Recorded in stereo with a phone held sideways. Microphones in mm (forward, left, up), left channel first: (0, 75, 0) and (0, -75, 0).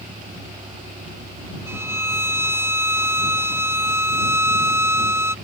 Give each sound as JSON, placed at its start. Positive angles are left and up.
{"t": 0.0, "sound": "a vehicle", "side_deg": -85}
{"t": 1.7, "sound": "a violin", "side_deg": -15}